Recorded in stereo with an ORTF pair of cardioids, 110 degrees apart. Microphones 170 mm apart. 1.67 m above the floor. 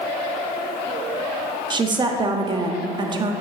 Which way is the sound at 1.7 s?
25° right.